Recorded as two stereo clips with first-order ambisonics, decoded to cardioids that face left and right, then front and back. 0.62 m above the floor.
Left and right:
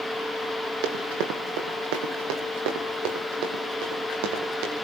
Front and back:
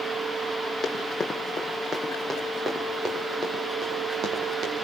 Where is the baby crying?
I don't hear a baby crying.